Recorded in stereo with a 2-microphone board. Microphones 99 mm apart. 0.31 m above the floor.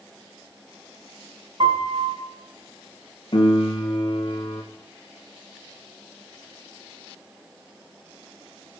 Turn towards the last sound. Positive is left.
turn(degrees=50)  # may be behind; listen again after turning